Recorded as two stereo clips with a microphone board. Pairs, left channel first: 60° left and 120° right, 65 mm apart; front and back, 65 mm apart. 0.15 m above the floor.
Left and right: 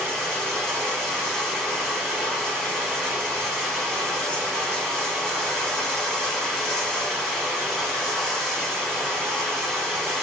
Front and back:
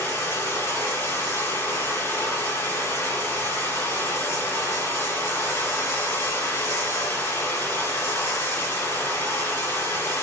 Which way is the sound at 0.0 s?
20° right.